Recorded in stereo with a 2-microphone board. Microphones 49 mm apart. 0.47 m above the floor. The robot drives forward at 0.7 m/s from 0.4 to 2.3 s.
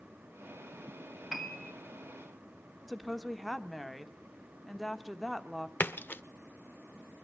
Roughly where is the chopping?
No chopping in this recording.